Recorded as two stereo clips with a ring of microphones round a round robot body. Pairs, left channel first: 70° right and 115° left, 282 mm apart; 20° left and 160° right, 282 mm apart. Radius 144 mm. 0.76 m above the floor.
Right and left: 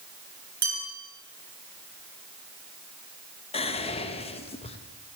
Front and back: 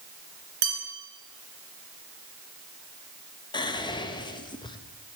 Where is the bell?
175° right, 2.5 m.